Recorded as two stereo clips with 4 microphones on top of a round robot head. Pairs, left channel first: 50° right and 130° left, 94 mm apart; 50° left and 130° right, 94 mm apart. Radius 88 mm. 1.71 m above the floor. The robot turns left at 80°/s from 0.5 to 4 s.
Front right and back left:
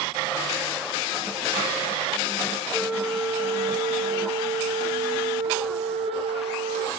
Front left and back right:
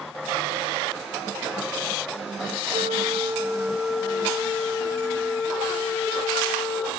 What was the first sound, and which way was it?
A flute, 125° right.